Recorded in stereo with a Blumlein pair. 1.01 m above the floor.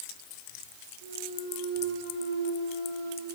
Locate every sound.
1.0 s a clunk: 60° right, 7.5 m